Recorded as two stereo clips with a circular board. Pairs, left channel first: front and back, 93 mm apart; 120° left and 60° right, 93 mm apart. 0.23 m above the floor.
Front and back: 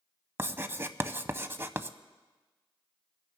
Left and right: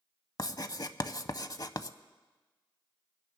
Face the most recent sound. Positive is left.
turn(degrees=130)